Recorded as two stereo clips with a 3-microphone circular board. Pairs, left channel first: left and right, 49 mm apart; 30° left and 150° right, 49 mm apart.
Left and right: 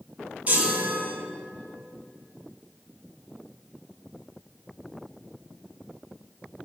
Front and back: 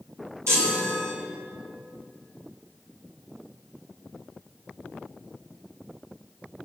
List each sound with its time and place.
0.5 s a chime: 150° right, 4.5 m